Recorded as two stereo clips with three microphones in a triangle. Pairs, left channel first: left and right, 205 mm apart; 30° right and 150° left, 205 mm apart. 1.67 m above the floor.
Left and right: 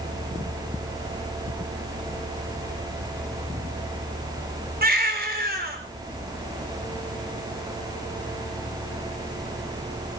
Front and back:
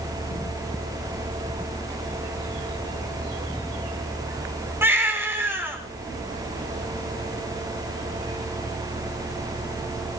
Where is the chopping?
No chopping in this recording.